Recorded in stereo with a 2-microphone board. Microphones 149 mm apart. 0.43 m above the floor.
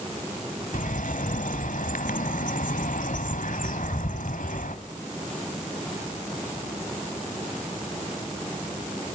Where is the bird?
70° left (ahead or behind), 1.3 m.